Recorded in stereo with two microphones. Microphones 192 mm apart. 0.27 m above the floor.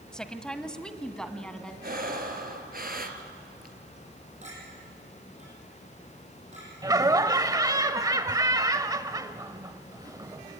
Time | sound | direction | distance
0.1 | a woman speaking | 5° left (ahead or behind) | 1.3 m
1.8 | breathing | 50° right (ahead or behind) | 2.0 m
4.4 | a clink | 35° right (ahead or behind) | 8.5 m
6.8 | laughter | 20° right (ahead or behind) | 0.9 m